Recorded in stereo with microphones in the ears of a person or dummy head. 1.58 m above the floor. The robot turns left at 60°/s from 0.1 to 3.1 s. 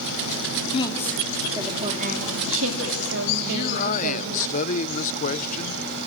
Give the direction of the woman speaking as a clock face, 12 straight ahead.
11 o'clock.